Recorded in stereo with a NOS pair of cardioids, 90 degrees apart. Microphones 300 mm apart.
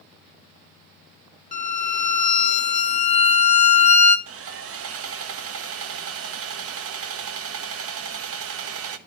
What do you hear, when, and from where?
1.5 s a violin: 25° left, 1.6 m
4.3 s sawing: 50° right, 1.1 m